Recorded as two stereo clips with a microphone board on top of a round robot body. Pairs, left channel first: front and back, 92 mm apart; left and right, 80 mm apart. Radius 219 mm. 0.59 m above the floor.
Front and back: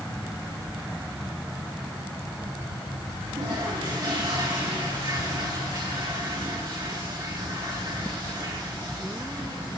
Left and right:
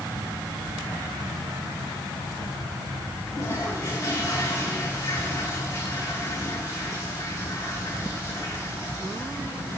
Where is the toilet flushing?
145° left, 9.5 m.